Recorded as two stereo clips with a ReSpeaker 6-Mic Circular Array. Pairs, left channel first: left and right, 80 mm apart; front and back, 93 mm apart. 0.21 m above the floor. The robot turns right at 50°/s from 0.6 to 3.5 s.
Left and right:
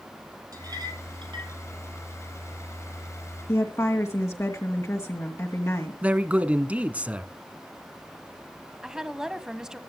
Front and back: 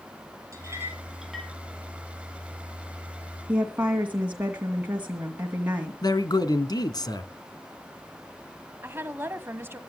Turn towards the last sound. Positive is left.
turn(degrees=-165)